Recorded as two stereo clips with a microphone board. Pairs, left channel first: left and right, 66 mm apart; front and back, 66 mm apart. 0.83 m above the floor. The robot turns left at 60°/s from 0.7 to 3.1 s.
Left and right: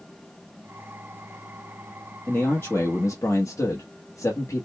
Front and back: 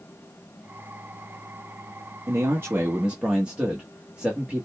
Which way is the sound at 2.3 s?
160° left.